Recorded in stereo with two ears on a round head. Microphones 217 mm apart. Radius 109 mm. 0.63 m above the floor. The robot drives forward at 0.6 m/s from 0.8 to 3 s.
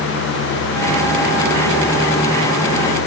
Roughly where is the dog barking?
I don't hear a dog barking.